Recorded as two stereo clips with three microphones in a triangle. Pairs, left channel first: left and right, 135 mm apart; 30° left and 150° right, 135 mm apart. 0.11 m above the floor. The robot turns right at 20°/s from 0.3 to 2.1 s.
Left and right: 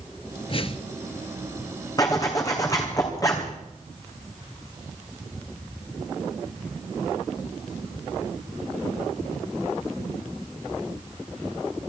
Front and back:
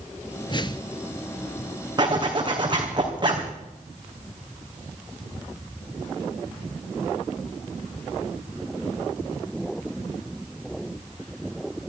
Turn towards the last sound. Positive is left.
turn(degrees=155)